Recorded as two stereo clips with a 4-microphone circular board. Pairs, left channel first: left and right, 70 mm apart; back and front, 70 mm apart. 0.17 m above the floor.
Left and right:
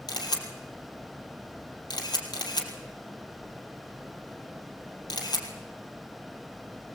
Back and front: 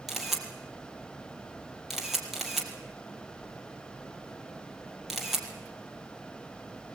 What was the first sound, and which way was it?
A camera shutter, 85° left.